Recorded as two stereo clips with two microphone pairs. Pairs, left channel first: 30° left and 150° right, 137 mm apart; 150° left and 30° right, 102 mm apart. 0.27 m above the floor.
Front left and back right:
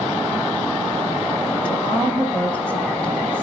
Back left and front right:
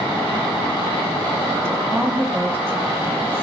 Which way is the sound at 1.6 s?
30° right.